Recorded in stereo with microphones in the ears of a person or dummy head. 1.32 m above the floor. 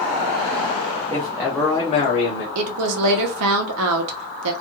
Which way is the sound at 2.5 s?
85° right.